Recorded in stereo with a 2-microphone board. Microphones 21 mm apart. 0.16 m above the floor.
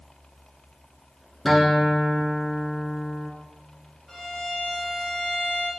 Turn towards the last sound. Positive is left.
turn(degrees=20)  # may be behind; listen again after turning